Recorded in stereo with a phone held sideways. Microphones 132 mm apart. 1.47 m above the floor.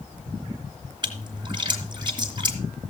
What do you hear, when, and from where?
1.0 s a splash: 35° right (ahead or behind), 3 m